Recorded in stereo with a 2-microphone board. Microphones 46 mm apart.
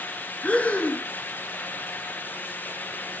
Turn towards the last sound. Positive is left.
turn(degrees=30)  # may be behind; listen again after turning